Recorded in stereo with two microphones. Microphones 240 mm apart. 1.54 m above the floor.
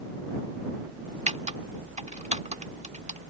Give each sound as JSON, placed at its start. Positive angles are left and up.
{"t": 1.3, "sound": "typing on a keyboard", "side_deg": -30}